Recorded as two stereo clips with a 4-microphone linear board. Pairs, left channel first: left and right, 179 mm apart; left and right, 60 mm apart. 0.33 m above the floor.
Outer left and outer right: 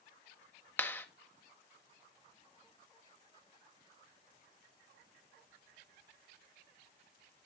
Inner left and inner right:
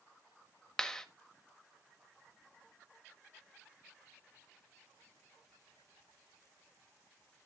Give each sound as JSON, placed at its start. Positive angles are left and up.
{"t": 0.8, "sound": "a clap", "side_deg": 10, "distance_m": 1.0}